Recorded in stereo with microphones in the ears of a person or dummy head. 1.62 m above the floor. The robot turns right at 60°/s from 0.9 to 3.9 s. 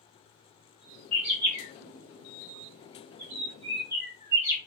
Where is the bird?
5° left (ahead or behind), 1.9 m; by 4.6 s 15° right (ahead or behind), 1.9 m.